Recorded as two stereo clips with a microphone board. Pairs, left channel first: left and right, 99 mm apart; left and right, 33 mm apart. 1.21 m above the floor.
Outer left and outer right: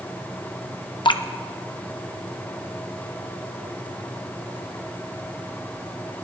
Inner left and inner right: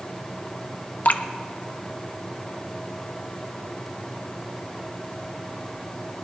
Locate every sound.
1.1 s dripping: 55° left (ahead or behind), 0.8 m